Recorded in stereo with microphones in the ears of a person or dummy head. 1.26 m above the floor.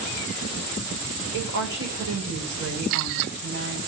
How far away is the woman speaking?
About 4.5 m.